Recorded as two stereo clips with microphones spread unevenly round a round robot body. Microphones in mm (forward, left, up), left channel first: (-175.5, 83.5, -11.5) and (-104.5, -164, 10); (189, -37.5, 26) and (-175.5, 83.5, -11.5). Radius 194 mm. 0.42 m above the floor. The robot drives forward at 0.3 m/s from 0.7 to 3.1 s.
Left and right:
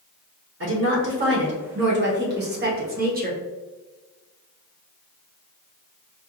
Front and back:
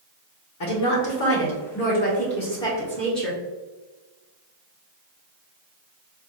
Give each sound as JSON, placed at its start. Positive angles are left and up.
{"t": 0.6, "sound": "a woman speaking", "azimuth_deg": -50, "distance_m": 1.1}